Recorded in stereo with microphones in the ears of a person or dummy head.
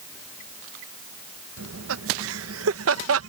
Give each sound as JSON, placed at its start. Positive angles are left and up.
{"t": 1.6, "sound": "laughter", "side_deg": -70}